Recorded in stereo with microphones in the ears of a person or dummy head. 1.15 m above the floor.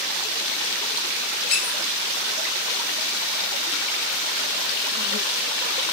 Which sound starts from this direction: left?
A squeak, at 1.5 s.